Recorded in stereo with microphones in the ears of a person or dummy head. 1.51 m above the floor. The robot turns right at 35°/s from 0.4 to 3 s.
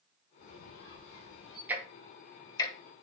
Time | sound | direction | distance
0.4 | a squeak | 85° left | 2.5 m
1.7 | ticking | 10° right (ahead or behind) | 1.0 m